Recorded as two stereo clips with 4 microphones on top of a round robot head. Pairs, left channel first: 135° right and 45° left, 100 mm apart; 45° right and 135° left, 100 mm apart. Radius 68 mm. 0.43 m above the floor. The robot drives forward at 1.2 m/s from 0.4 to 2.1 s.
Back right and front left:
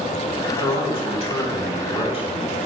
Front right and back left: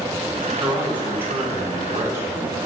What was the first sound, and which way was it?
A man speaking, 150° right.